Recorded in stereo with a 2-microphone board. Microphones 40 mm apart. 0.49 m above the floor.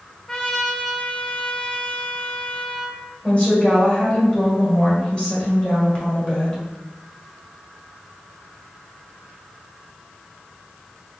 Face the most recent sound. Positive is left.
turn(degrees=25)  # may be behind; listen again after turning